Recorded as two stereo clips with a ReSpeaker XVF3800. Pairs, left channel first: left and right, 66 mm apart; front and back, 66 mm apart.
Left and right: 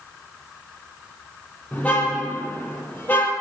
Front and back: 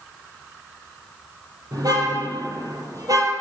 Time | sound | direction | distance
1.7 | a car horn | 160° left | 8 m